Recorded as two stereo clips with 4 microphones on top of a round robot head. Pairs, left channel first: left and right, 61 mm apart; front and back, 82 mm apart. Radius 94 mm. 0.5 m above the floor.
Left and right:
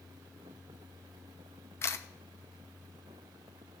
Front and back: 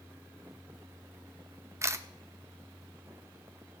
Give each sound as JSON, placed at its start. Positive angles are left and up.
{"t": 1.8, "sound": "a camera shutter", "azimuth_deg": 130, "distance_m": 0.8}